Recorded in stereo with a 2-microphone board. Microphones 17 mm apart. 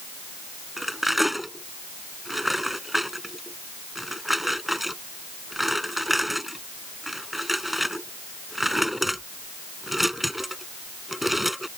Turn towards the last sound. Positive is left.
turn(degrees=-10)  # may be behind; listen again after turning